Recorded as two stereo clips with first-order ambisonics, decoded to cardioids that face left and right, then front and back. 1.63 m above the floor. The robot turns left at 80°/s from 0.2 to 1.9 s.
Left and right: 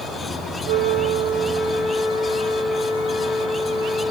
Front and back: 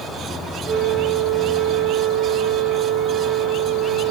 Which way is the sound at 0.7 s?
135° right.